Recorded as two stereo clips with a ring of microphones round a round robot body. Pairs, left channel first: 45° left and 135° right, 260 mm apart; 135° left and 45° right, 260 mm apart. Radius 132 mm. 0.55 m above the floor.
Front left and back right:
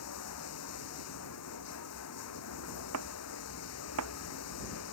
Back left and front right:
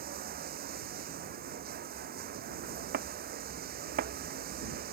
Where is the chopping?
100° right.